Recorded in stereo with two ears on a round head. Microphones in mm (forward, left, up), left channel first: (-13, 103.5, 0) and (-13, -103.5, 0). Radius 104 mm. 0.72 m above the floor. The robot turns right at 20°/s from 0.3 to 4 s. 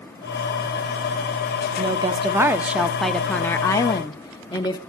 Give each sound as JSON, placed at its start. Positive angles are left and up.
{"t": 1.8, "sound": "a woman speaking", "azimuth_deg": -25, "distance_m": 0.8}